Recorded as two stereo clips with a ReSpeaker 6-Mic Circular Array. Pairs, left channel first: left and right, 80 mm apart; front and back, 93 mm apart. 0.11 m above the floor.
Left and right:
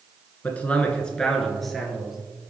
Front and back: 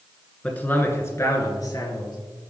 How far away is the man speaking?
About 1.3 m.